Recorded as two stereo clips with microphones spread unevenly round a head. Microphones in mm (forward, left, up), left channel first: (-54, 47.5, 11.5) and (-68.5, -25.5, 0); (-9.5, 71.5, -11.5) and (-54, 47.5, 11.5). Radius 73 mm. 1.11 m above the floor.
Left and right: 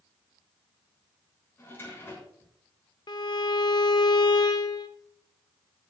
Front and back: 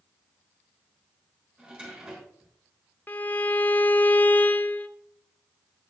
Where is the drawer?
135° left, 6.5 m.